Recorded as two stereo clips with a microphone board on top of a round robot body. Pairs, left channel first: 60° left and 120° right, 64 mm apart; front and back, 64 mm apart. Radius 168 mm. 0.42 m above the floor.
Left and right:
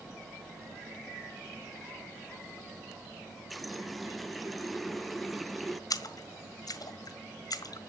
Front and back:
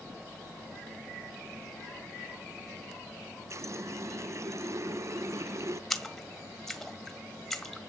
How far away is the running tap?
About 0.8 m.